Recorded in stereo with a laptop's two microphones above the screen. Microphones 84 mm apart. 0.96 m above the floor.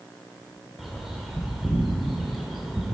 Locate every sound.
0.8 s a bird: centre (ahead or behind), 1.7 m